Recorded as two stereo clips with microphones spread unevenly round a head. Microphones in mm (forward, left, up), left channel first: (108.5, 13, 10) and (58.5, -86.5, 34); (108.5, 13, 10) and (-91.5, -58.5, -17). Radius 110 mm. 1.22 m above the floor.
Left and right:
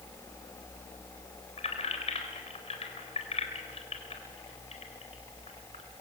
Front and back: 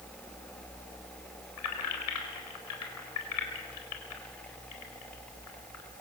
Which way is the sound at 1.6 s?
35° left.